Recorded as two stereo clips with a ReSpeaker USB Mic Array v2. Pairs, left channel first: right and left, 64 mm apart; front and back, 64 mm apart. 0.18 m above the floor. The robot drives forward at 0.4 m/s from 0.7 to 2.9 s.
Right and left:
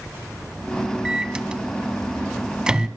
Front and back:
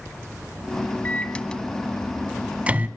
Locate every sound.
1.1 s a microwave: 25° left, 0.9 m; by 2.9 s 155° left, 0.8 m